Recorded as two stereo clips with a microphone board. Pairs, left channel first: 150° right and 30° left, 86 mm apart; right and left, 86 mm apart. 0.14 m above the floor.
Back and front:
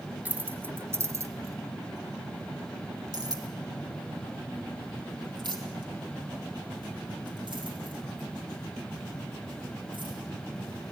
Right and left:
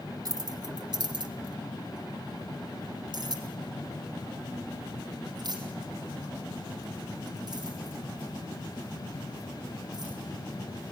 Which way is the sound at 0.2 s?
95° left.